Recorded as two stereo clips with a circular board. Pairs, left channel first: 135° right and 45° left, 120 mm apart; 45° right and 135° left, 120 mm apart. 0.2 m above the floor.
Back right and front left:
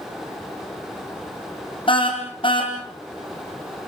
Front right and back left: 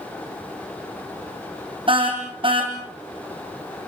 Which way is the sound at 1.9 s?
Straight behind.